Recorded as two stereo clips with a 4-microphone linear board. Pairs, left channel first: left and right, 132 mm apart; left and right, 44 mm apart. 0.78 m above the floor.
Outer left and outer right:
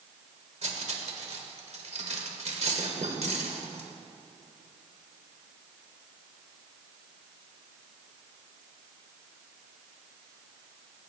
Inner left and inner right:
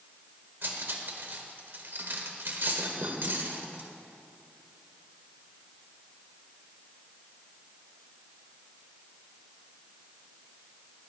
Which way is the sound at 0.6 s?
60° right (ahead or behind).